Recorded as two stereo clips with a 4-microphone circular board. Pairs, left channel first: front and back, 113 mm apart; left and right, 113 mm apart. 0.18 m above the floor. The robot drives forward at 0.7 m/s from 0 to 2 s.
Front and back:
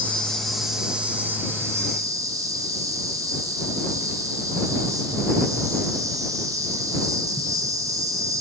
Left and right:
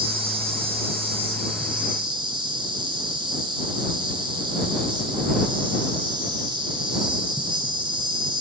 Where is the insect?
75° right, 1.8 m; by 8.4 s 125° right, 2 m.